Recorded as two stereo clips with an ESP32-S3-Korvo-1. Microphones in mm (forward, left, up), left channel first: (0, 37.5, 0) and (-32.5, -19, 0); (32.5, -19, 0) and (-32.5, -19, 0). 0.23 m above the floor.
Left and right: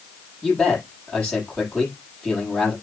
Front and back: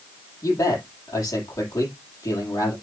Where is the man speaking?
25° right, 7 m.